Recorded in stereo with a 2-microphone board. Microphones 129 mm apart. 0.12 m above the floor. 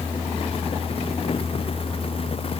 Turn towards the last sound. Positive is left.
No sound to turn to.